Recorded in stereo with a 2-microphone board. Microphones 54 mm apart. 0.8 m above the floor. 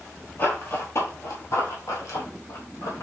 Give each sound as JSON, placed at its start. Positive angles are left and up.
{"t": 0.4, "sound": "running footsteps", "side_deg": 35, "distance_m": 1.3}